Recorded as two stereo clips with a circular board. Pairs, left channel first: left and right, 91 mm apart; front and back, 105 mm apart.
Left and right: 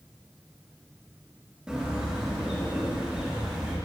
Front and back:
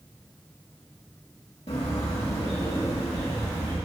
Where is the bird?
10° right, 1.8 m.